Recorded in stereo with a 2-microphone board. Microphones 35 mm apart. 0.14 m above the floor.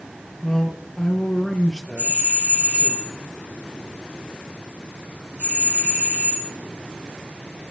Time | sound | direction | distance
0.4 | a man speaking | 20° left (ahead or behind) | 2.5 m
2.0 | a doorbell | 70° right (ahead or behind) | 7.5 m